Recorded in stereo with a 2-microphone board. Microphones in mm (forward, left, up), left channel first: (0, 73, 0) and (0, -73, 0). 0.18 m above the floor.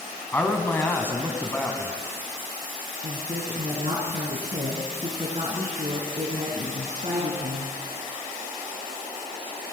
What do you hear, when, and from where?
0.3 s a man speaking: 15° left (ahead or behind), 1.0 m
3.0 s a woman speaking: 50° right (ahead or behind), 1.7 m